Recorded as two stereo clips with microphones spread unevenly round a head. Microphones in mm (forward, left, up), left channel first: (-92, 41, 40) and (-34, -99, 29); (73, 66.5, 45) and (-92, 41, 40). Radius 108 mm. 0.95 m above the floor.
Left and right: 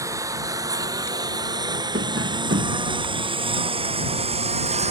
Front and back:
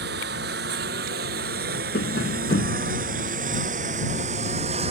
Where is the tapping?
30° right.